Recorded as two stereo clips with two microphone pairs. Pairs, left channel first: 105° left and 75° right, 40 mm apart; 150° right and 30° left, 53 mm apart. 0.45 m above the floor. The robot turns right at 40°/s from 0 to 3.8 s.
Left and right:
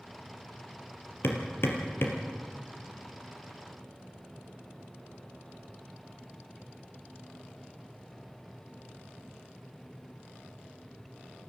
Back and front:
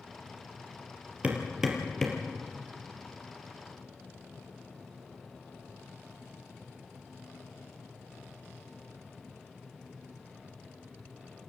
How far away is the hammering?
About 3 m.